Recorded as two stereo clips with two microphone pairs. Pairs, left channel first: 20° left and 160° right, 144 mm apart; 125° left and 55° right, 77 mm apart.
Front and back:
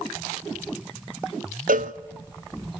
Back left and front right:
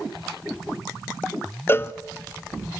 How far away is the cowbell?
About 0.6 m.